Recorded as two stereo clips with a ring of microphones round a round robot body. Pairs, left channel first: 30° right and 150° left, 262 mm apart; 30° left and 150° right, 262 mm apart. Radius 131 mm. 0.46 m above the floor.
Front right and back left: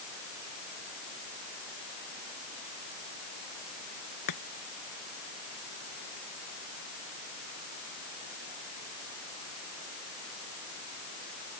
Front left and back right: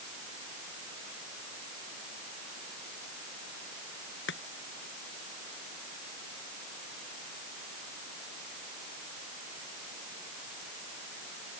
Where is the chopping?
20° right.